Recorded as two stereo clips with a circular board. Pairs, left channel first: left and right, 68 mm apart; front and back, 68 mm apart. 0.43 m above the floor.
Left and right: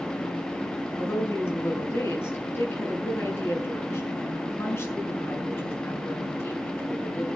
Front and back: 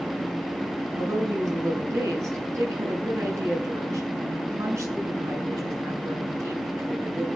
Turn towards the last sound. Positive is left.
turn(degrees=140)